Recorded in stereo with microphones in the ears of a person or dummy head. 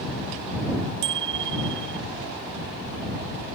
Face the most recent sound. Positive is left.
turn(degrees=-65)  # may be behind; listen again after turning